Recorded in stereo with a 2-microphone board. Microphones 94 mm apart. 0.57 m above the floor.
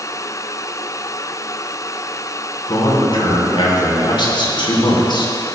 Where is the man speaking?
60° left (ahead or behind), 2.5 m.